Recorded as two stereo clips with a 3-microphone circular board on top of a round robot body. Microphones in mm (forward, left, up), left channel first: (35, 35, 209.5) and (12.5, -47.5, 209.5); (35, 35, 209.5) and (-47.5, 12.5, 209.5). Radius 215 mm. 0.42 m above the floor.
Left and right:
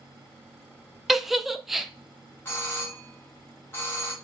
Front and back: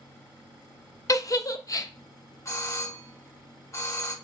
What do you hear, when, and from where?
1.1 s a giggle: 20° right, 0.7 m
2.5 s a doorbell: 30° left, 1.9 m